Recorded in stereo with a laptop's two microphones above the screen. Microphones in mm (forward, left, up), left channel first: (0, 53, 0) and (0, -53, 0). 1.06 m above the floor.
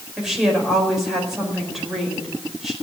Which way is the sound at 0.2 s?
5° right (ahead or behind).